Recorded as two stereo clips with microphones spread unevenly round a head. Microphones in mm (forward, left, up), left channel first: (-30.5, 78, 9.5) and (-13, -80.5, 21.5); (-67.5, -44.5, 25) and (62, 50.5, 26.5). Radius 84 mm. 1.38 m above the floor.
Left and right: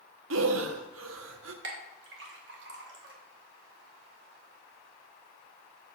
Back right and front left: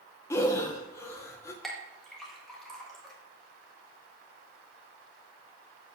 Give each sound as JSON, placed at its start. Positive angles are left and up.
{"t": 0.3, "sound": "breathing", "azimuth_deg": -70, "distance_m": 0.9}
{"t": 1.6, "sound": "a clink", "azimuth_deg": -55, "distance_m": 1.5}